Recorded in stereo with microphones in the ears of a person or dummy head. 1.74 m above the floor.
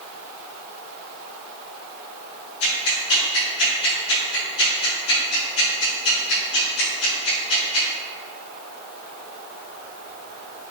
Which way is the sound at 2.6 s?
65° left (ahead or behind).